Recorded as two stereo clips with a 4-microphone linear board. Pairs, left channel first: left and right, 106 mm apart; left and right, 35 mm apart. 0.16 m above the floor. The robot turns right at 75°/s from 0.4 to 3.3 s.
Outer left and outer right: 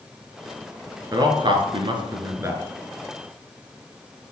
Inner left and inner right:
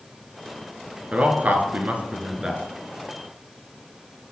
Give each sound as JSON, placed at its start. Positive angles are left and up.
{"t": 1.1, "sound": "a man speaking", "side_deg": -35, "distance_m": 2.0}